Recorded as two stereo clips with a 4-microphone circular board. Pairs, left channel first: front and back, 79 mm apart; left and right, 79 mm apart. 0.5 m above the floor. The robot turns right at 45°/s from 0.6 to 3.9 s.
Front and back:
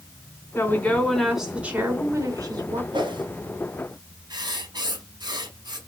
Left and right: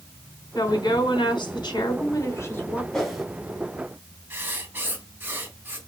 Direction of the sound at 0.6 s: 60° left.